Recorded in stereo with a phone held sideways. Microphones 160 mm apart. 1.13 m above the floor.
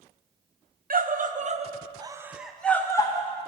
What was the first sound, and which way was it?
A scream, 60° right (ahead or behind).